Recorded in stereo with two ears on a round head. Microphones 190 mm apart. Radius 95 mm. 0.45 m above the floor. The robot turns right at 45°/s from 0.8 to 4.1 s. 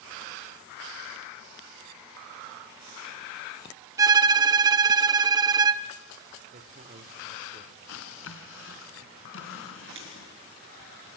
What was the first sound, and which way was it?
A violin, 15° right (ahead or behind).